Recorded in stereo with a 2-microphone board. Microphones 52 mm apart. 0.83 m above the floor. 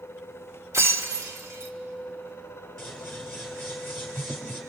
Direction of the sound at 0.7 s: 85° right.